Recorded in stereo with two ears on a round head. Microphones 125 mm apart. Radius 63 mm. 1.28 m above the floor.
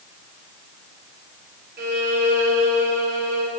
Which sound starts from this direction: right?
A violin, at 1.8 s.